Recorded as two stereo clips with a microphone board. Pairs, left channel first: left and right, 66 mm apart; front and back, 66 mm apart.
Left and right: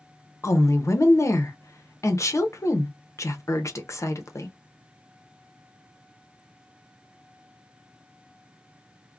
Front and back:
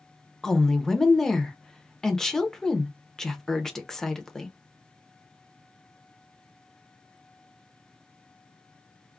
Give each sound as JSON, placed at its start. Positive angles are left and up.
{"t": 0.4, "sound": "a woman speaking", "azimuth_deg": 80, "distance_m": 0.6}